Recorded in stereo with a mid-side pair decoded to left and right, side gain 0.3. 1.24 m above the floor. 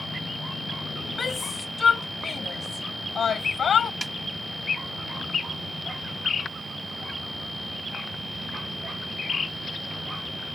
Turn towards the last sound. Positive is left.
turn(degrees=-25)